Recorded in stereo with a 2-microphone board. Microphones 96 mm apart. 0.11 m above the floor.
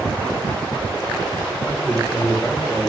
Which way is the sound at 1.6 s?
15° left (ahead or behind).